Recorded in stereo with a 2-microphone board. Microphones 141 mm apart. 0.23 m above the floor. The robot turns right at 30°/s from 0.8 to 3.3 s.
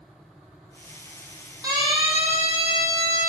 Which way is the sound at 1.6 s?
25° right (ahead or behind).